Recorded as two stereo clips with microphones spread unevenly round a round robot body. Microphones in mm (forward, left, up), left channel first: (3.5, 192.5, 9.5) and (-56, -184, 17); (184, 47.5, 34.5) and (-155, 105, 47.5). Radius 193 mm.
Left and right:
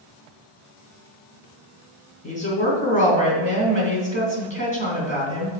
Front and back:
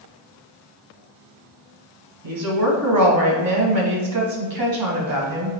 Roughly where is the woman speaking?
Behind left.